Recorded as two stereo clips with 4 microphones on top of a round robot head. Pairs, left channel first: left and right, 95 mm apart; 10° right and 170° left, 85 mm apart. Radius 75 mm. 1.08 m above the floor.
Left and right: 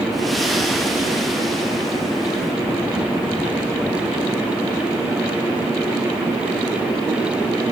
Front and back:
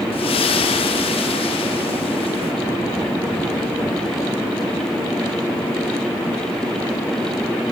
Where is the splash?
Straight ahead, 0.9 m.